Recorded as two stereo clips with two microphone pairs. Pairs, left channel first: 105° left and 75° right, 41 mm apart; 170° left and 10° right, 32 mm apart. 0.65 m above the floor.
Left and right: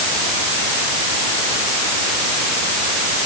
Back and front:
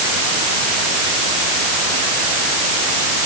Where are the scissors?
No scissors in this recording.